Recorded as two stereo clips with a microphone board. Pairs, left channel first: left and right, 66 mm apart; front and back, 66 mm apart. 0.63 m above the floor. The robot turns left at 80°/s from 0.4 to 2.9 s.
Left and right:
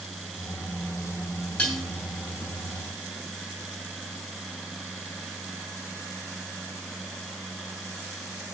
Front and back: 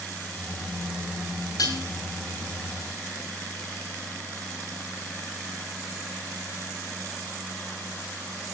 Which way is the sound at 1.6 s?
15° left.